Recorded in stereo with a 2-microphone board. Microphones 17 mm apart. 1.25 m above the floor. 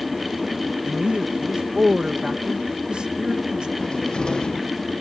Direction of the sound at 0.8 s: 85° right.